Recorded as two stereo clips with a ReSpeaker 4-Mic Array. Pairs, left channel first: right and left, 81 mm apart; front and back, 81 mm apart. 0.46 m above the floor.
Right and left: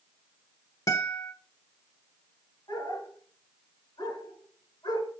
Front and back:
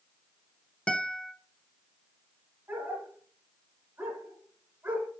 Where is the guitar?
70° right, 0.9 m.